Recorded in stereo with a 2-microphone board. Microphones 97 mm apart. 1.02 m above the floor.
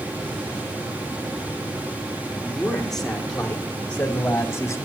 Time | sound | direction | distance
2.4 | a man speaking | centre (ahead or behind) | 5 m